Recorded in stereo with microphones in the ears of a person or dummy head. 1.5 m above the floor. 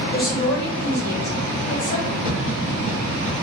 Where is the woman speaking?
50° left (ahead or behind), 1.0 m; by 2.1 s 40° left (ahead or behind), 2.5 m.